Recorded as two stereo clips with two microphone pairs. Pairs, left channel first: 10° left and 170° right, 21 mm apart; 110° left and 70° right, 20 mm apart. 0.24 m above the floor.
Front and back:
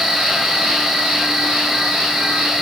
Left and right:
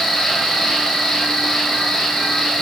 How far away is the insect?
About 0.9 m.